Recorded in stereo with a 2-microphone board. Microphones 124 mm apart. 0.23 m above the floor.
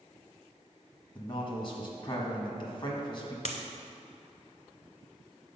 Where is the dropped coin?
80° left, 0.7 m.